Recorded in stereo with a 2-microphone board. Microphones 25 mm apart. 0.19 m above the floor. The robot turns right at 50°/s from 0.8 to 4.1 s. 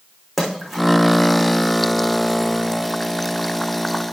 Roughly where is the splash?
Centre.